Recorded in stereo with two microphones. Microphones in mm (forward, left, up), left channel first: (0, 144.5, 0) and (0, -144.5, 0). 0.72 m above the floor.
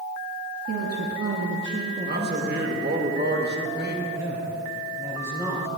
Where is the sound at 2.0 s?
35° right (ahead or behind), 1.1 m.